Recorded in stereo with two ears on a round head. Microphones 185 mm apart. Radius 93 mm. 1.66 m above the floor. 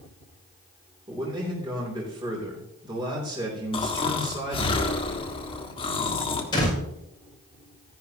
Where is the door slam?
25° left (ahead or behind), 6.5 m.